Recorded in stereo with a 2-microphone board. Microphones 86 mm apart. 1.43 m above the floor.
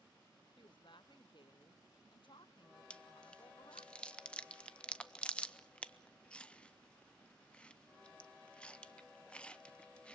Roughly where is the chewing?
Centre.